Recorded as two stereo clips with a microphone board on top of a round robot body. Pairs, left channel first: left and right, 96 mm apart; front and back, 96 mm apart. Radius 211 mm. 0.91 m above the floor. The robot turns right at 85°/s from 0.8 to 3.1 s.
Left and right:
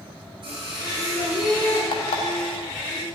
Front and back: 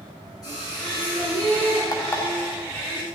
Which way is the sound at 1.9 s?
50° left.